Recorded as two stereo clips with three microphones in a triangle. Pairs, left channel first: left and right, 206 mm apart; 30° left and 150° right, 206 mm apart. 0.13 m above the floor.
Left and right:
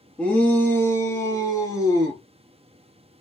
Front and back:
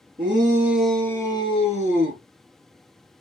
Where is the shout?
170° left, 1.7 m; by 2.2 s 20° left, 2 m.